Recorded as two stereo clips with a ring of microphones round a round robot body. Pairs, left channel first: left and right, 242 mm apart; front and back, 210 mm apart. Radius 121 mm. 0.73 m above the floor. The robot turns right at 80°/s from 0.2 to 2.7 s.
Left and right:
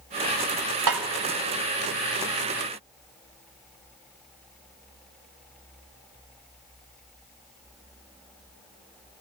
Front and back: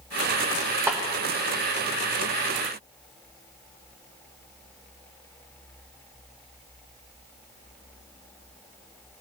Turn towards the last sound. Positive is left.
turn(degrees=50)